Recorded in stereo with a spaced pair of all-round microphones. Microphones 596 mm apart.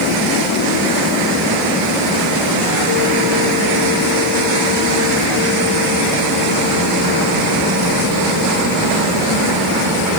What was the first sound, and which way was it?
Only background noise.